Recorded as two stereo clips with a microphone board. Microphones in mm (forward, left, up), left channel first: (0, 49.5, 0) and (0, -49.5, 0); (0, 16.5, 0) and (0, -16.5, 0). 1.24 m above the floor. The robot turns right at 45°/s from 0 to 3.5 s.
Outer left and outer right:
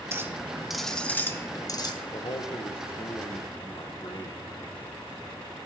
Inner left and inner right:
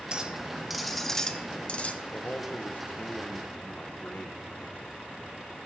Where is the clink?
30° right, 0.9 m; by 1.9 s 55° left, 0.9 m.